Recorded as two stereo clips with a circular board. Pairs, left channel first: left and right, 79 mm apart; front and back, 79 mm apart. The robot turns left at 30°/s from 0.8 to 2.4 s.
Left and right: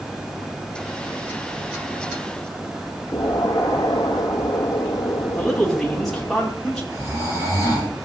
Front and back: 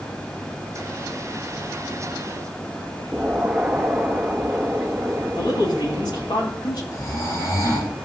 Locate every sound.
3.1 s an explosion: 105° left, 1.5 m
5.4 s a man speaking: 5° left, 4 m
6.9 s snoring: 45° right, 7.5 m